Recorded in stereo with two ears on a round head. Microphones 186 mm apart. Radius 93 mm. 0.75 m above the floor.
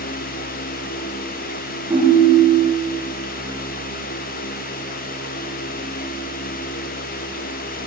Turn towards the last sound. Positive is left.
turn(degrees=-15)  # may be behind; listen again after turning